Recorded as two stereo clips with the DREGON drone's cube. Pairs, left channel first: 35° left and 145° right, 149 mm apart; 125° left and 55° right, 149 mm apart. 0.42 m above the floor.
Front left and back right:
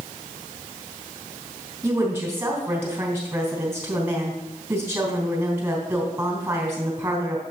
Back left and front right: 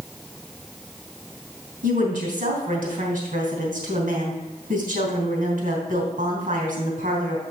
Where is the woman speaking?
70° right, 3 m.